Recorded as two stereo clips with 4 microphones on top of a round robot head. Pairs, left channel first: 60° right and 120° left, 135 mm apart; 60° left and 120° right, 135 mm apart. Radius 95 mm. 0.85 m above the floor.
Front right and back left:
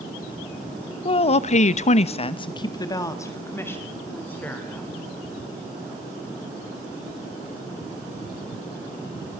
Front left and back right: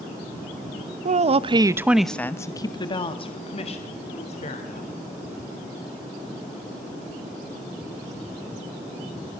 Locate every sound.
1.1 s a woman speaking: 105° right, 1.2 m; by 4.9 s 20° left, 3.5 m